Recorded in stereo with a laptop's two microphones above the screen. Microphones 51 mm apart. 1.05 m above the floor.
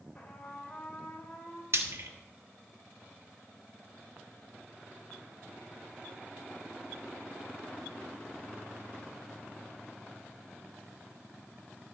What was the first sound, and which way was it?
A trumpet, 25° left (ahead or behind).